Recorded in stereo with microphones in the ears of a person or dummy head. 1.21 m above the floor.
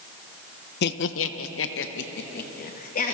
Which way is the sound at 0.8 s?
55° left (ahead or behind).